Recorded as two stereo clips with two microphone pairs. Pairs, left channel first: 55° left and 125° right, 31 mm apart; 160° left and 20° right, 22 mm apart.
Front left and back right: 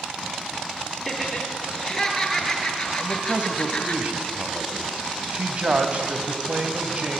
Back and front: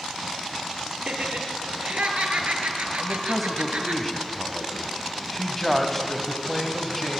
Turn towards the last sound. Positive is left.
turn(degrees=-120)